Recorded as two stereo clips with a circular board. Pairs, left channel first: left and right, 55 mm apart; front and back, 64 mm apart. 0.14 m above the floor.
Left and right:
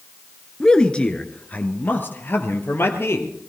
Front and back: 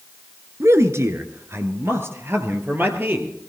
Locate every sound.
0.6 s a man speaking: 165° left, 1.5 m; by 3.3 s 125° left, 2.5 m